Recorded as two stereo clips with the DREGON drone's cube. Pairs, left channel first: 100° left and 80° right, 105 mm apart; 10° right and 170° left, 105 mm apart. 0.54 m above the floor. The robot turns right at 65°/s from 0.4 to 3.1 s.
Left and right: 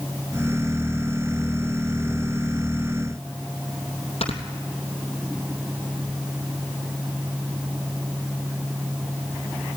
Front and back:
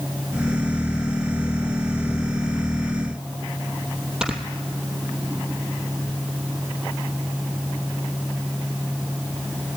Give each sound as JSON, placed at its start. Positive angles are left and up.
{"t": 4.2, "sound": "snoring", "azimuth_deg": 85, "distance_m": 3.0}